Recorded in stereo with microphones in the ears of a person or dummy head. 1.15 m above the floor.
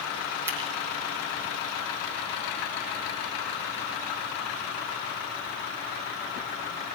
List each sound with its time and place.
0.5 s scissors: 10° right (ahead or behind), 9 m